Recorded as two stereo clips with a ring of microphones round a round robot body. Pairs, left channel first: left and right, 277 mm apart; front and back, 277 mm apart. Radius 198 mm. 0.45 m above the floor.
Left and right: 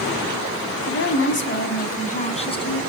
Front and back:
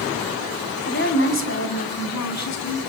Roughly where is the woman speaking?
Ahead left.